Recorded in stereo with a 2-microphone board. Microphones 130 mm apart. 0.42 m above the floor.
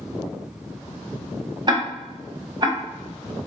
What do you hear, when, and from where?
1.7 s ticking: 35° right (ahead or behind), 0.6 m